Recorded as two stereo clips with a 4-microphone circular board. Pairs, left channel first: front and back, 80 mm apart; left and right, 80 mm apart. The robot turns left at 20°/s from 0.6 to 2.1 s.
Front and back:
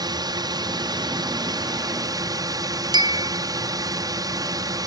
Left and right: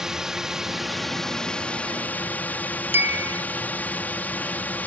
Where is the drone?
175° right; by 4.9 s 155° left.